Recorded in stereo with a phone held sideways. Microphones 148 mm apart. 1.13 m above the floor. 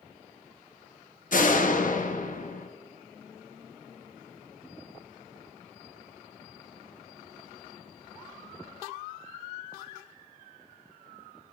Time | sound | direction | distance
1.3 | a door slam | 60° left (ahead or behind) | 1.1 m